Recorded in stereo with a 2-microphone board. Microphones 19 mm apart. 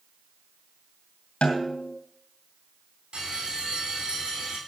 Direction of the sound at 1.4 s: 80° left.